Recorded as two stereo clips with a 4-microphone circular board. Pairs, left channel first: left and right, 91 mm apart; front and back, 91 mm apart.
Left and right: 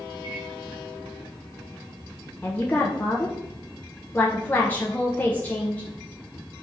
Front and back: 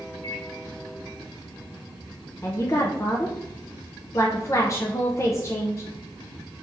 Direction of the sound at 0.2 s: 60° right.